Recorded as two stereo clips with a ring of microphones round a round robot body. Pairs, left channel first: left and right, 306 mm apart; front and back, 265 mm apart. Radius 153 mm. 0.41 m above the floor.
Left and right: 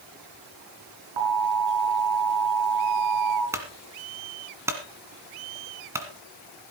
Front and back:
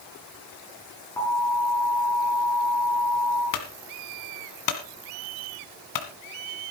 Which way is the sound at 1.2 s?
80° right.